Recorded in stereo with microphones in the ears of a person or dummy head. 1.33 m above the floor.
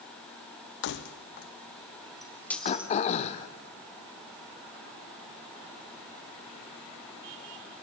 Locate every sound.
0.8 s keys jangling: 65° left (ahead or behind), 1.1 m; by 2.9 s 10° right (ahead or behind), 0.9 m
2.6 s throat clearing: 40° left (ahead or behind), 1.4 m